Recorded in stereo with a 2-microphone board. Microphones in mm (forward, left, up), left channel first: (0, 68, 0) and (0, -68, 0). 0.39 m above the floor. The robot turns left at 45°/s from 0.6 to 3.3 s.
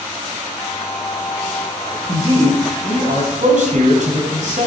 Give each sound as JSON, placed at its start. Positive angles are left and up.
{"t": 2.1, "sound": "a man speaking", "azimuth_deg": -45, "distance_m": 2.5}